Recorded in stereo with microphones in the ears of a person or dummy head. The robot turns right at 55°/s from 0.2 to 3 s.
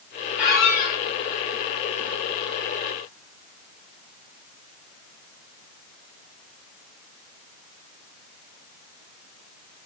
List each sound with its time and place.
0.4 s a squeak: 15° left, 3.5 m; by 1.0 s 45° left, 3.5 m